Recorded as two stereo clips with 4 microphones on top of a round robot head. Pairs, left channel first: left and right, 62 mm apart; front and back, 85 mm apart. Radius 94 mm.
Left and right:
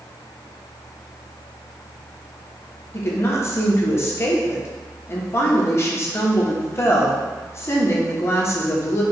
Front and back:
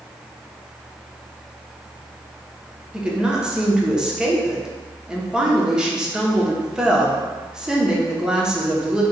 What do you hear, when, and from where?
2.9 s a woman speaking: 105° left, 1.0 m